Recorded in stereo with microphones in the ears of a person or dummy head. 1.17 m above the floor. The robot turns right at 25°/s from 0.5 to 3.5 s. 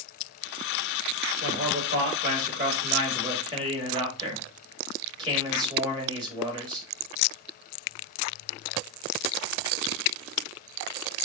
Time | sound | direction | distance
1.4 | a man speaking | 80° right | 2.5 m